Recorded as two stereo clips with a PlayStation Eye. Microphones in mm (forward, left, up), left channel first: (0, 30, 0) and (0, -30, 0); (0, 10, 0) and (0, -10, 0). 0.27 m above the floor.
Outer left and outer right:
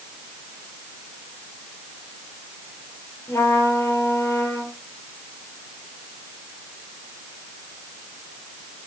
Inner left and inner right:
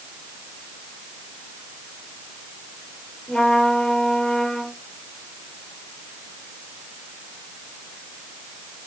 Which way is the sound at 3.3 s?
50° left (ahead or behind).